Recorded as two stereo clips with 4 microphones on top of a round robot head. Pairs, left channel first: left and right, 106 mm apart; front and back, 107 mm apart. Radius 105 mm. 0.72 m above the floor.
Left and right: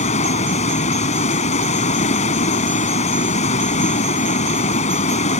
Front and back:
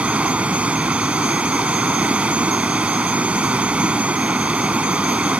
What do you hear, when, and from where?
0.0 s running water: 100° left